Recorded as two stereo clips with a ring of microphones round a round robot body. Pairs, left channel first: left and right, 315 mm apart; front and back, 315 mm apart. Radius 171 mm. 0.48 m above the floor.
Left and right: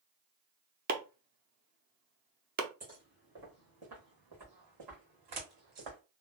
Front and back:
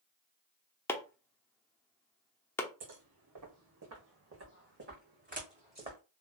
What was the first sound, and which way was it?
Chopping, 75° right.